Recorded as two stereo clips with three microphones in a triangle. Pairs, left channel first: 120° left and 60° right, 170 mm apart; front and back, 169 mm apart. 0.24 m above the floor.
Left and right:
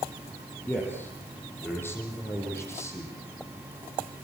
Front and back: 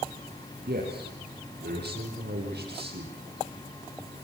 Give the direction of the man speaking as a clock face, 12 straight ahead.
5 o'clock.